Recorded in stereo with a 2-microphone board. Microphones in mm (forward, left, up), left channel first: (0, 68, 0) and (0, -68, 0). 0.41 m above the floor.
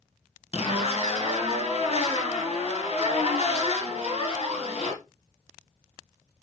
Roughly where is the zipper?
Left.